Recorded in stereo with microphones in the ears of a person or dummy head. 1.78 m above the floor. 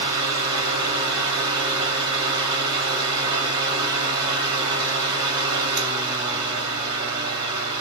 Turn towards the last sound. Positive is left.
turn(degrees=-20)  # may be behind; listen again after turning